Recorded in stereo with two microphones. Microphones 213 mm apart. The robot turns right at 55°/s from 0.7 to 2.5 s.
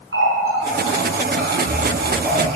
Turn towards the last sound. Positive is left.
turn(degrees=5)  # may be behind; listen again after turning